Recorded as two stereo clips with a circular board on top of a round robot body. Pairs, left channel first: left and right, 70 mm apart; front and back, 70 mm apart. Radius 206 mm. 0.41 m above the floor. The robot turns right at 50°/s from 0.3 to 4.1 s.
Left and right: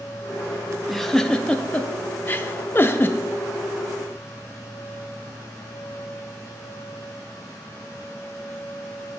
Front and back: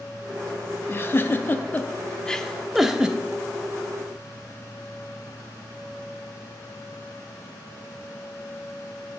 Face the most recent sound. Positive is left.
turn(degrees=160)